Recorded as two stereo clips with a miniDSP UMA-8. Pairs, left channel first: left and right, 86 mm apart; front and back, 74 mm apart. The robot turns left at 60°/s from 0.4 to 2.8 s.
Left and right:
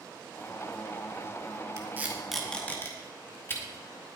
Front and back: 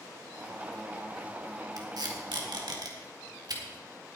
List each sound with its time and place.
1.8 s tape being pulled: 145° right, 2 m; by 3.6 s 155° left, 2 m